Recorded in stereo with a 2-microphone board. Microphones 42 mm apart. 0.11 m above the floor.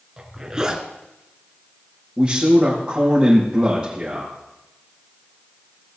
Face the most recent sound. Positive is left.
turn(degrees=-25)  # may be behind; listen again after turning